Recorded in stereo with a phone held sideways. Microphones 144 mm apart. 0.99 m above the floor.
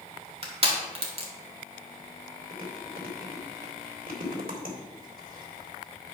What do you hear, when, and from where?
0.4 s crushing: 40° right (ahead or behind), 2 m
2.5 s chewing: 75° right (ahead or behind), 2.5 m